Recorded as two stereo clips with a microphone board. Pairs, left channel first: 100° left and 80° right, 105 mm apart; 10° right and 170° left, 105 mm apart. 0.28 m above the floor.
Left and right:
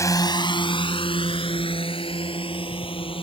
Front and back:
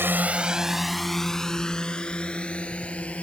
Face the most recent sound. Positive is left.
turn(degrees=65)